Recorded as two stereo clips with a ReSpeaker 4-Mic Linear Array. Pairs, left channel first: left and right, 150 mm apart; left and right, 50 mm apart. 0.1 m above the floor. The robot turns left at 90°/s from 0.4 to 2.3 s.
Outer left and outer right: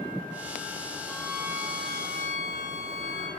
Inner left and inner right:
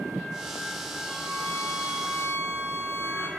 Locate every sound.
1.1 s a violin: 170° left, 3 m; by 3.3 s 60° left, 3 m